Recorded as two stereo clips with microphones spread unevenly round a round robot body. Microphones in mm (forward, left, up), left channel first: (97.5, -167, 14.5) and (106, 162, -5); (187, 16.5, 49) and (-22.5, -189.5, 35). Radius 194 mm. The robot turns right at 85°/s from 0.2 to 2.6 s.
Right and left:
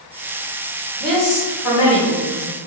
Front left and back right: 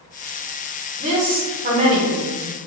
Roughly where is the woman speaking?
Behind.